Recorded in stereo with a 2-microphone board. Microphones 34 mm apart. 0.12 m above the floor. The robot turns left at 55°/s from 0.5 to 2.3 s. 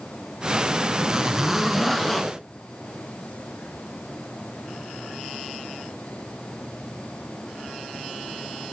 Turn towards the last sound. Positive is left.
turn(degrees=155)